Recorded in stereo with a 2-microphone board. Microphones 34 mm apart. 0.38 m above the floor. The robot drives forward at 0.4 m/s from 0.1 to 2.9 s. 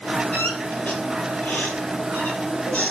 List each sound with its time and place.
0.3 s a squeak: 50° left (ahead or behind), 4 m; by 2.9 s 40° left (ahead or behind), 4.5 m